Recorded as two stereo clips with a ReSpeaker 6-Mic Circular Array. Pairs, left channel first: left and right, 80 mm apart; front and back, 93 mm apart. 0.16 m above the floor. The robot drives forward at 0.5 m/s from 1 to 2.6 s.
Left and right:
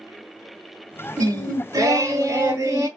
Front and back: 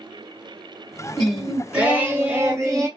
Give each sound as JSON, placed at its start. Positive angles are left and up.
{"t": 1.2, "sound": "singing", "azimuth_deg": -80, "distance_m": 0.9}